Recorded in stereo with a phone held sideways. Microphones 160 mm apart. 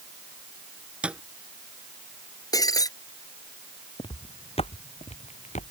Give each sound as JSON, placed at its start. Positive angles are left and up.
{"t": 1.0, "sound": "a thud", "side_deg": -5}
{"t": 2.5, "sound": "breaking glass", "side_deg": 25}
{"t": 4.0, "sound": "footsteps", "side_deg": 35}